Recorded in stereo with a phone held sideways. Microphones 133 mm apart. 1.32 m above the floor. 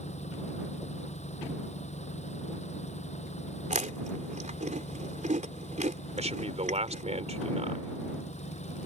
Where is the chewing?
65° right (ahead or behind).